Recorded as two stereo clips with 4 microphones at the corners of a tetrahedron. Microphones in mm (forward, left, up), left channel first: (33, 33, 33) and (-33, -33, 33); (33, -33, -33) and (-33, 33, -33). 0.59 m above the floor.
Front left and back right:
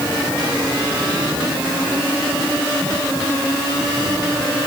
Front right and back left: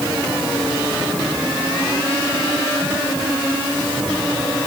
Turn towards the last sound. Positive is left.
No sound to turn to.